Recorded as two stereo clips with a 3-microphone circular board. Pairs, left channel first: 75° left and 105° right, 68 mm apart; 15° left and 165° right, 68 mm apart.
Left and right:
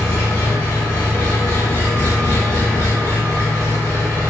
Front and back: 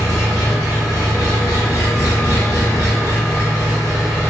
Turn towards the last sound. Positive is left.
turn(degrees=25)